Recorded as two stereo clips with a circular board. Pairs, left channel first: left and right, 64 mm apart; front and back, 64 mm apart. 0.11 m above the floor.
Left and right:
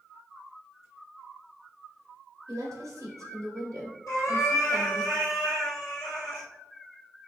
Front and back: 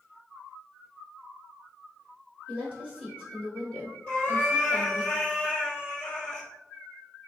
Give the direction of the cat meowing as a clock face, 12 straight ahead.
10 o'clock.